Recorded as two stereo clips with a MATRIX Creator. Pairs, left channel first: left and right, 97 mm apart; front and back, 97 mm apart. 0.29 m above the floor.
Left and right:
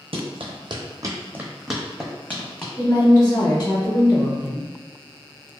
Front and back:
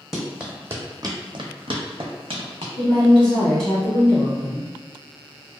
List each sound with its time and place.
0.1 s running footsteps: 95° right, 0.8 m; by 2.7 s 160° left, 1.1 m
2.8 s a woman speaking: 90° left, 1.7 m